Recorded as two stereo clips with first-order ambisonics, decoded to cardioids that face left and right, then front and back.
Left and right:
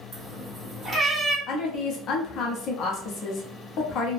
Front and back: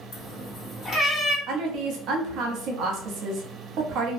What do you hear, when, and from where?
0.1 s a cat meowing: 25° right, 1.7 m; by 1.4 s 5° left, 1.5 m
1.5 s a woman speaking: 140° left, 0.7 m